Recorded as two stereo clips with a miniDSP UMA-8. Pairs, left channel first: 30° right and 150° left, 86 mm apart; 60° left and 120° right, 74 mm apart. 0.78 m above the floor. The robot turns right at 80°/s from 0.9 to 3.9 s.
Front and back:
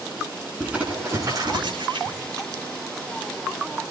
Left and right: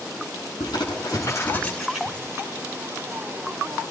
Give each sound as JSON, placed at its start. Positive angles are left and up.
{"t": 0.6, "sound": "crumpling", "azimuth_deg": 75, "distance_m": 9.0}